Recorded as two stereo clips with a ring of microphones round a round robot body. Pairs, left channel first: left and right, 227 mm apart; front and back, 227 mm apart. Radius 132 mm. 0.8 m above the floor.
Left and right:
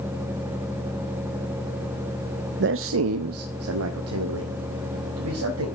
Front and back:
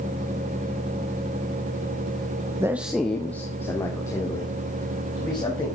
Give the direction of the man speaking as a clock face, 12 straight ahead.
4 o'clock.